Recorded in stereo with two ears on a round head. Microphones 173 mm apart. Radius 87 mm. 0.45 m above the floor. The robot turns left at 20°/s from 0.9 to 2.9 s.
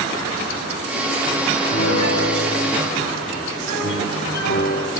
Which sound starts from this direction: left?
A piano, at 1.7 s.